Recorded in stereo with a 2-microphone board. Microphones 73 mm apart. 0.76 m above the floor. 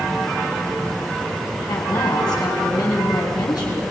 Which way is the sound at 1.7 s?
70° left (ahead or behind).